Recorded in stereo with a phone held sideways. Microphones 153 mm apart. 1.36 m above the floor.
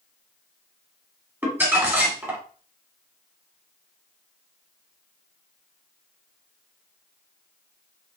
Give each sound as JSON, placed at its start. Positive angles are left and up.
{"t": 1.4, "sound": "crumpling", "side_deg": -15, "distance_m": 2.5}